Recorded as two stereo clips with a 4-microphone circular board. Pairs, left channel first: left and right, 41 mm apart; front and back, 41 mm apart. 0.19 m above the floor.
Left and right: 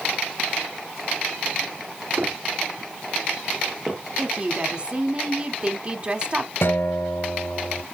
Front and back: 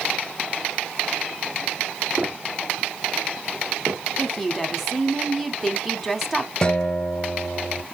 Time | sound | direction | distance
2.2 | footsteps | 120° right | 2.5 m
4.2 | a woman speaking | 95° right | 1.1 m
6.6 | a guitar | 70° left | 1.4 m